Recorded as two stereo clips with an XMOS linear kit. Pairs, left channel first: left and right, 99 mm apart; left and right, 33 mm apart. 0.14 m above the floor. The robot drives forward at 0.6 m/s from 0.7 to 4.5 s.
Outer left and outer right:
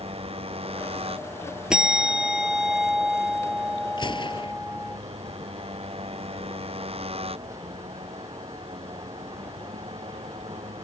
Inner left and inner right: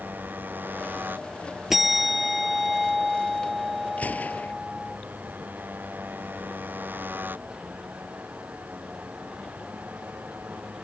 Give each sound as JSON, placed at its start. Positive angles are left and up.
{"t": 0.0, "sound": "a motorcycle", "side_deg": -80}
{"t": 1.7, "sound": "a bell", "side_deg": -10}
{"t": 4.0, "sound": "a gunshot", "side_deg": 55}